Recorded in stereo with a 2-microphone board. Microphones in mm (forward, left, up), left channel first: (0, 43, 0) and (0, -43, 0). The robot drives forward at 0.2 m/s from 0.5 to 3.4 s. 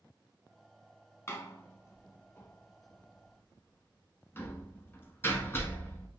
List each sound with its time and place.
1.3 s a door slam: 35° left (ahead or behind), 0.9 m; by 6.1 s 30° left (ahead or behind), 1.0 m